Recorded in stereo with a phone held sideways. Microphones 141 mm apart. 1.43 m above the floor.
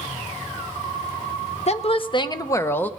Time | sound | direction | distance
1.7 | a woman speaking | 50° left (ahead or behind) | 0.9 m